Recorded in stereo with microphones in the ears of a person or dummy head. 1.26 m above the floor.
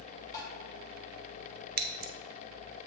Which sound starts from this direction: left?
Tapping, at 0.3 s.